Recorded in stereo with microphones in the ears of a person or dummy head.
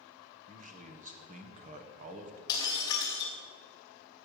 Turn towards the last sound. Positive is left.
turn(degrees=20)  # may be behind; listen again after turning